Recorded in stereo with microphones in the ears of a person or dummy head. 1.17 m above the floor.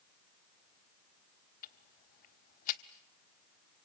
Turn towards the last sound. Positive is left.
turn(degrees=45)  # may be behind; listen again after turning